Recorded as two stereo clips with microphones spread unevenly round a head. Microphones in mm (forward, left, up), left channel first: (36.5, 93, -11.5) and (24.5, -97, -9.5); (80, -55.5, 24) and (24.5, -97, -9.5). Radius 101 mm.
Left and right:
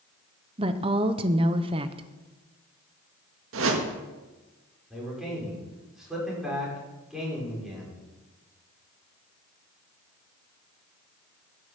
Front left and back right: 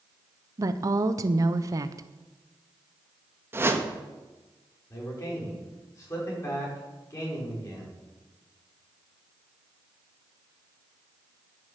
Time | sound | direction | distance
0.6 | a woman speaking | 160° right | 0.7 m
3.5 | a whoosh | 80° right | 1.8 m
4.9 | a man speaking | 5° right | 5.5 m